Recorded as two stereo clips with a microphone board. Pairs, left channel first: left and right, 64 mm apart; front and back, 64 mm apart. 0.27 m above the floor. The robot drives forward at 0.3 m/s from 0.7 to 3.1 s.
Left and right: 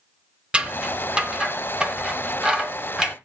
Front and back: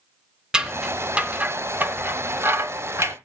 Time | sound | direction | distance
0.5 | scissors | 130° right | 0.9 m